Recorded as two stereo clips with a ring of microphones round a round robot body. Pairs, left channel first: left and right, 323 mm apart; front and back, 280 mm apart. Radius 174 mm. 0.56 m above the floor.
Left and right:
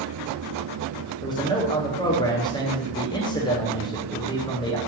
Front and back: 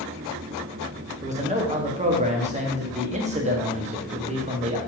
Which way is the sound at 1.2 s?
150° left.